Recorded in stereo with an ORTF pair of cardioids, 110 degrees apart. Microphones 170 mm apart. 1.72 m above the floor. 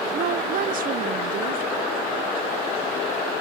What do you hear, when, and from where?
0.1 s a woman speaking: 55° right, 1.0 m